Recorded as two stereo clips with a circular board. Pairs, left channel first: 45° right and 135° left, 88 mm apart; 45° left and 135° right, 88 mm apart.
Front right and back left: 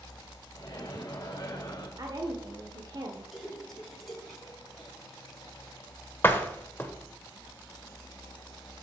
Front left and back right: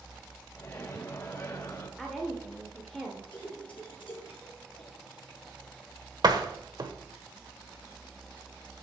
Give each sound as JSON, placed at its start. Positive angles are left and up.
{"t": 0.6, "sound": "a microwave", "azimuth_deg": -5, "distance_m": 2.0}
{"t": 2.0, "sound": "a woman speaking", "azimuth_deg": 130, "distance_m": 1.4}
{"t": 3.3, "sound": "a splash", "azimuth_deg": 45, "distance_m": 3.5}
{"t": 6.2, "sound": "a door slam", "azimuth_deg": -105, "distance_m": 1.3}